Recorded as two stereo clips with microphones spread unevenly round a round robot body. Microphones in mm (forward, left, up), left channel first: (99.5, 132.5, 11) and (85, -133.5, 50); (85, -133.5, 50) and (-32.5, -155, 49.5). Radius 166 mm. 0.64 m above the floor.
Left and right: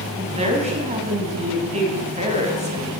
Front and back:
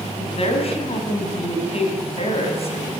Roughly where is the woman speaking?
Ahead right.